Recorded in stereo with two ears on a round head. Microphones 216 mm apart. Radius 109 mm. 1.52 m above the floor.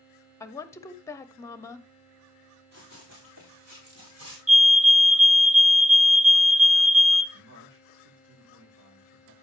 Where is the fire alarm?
30° right (ahead or behind), 0.8 m.